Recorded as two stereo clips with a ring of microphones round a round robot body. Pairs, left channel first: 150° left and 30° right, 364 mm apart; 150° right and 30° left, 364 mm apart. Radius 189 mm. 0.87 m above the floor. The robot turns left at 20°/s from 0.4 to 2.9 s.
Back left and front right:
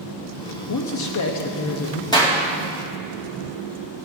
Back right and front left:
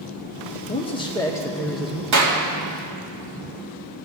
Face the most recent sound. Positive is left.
turn(degrees=55)